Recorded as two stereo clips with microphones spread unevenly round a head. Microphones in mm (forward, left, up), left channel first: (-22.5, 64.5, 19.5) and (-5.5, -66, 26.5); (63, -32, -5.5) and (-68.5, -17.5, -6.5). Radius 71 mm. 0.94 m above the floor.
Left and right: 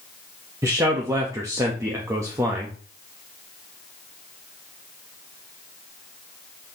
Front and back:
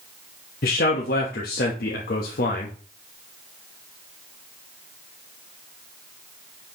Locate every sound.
0.6 s a man speaking: 15° right, 1.1 m